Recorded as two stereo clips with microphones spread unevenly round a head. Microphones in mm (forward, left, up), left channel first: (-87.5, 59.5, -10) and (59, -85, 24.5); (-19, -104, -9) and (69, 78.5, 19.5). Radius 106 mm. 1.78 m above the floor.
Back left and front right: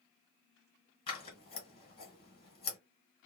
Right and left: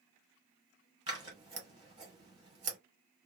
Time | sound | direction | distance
1.1 | scissors | 80° left | 1.8 m